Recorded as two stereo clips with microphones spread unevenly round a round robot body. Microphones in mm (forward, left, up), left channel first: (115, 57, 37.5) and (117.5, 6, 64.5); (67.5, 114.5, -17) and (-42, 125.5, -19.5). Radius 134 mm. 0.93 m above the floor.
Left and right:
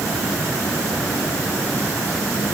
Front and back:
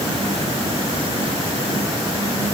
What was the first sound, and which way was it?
Only background noise.